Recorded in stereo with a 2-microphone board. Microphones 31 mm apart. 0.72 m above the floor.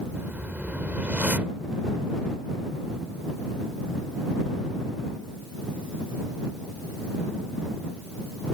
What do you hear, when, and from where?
0.1 s a whoosh: 70° right (ahead or behind)